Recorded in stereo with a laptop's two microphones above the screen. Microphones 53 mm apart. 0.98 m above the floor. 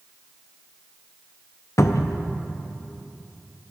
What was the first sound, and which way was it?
A cupboard door, 65° left (ahead or behind).